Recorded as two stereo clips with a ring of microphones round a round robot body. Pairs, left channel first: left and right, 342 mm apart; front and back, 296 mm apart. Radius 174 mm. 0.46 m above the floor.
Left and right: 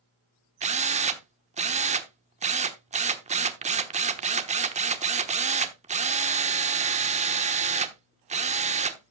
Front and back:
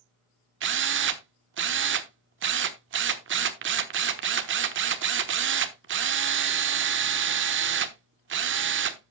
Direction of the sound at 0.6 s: 150° right.